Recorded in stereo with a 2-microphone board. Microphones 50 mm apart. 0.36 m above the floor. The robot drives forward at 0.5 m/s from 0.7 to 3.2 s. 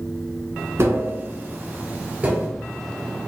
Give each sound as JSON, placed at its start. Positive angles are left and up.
{"t": 0.8, "sound": "tapping", "side_deg": -50, "distance_m": 0.8}